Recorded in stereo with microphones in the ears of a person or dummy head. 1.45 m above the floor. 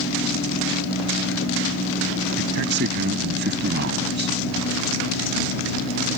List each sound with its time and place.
2.4 s a man speaking: 60° right (ahead or behind)